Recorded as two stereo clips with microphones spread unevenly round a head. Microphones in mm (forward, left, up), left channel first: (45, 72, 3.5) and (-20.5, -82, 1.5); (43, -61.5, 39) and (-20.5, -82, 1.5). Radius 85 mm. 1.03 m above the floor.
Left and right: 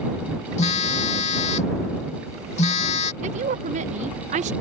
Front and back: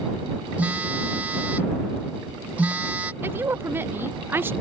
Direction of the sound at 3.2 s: 155° right.